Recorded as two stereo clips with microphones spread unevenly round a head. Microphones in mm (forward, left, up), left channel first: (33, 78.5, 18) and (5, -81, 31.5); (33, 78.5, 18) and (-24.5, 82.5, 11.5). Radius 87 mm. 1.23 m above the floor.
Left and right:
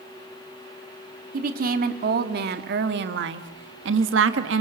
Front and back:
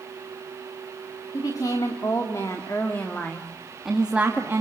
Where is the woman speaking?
65° right, 3.5 m; by 4.6 s 110° right, 2 m.